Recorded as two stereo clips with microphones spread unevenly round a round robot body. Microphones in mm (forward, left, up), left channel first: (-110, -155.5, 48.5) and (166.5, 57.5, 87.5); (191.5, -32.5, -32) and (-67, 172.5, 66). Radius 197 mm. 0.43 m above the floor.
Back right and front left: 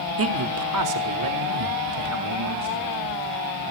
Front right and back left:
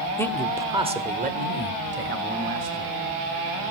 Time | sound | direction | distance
0.2 | a man speaking | 10° left | 1.2 m